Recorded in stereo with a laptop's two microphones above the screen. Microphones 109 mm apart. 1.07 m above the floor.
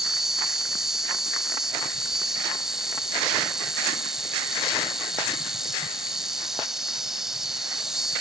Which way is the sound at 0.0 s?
5° right (ahead or behind).